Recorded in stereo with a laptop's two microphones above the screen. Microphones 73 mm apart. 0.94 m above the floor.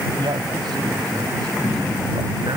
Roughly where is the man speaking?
Right.